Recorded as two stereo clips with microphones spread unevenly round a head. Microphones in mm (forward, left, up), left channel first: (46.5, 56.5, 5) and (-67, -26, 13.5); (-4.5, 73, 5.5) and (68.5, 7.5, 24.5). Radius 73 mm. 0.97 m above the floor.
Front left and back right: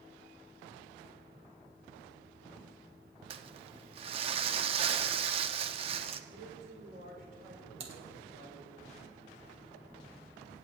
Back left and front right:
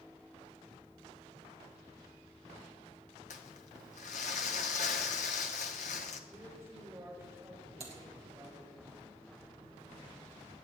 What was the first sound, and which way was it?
Crumpling, 170° left.